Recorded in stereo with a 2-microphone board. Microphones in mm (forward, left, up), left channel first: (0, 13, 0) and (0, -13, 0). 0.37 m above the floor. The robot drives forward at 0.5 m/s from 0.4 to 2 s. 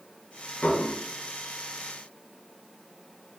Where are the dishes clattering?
65° left (ahead or behind), 1.9 m; by 1.0 s 70° left (ahead or behind), 1.8 m.